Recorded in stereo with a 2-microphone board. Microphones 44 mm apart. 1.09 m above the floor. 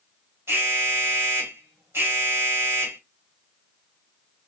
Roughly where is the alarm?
Right.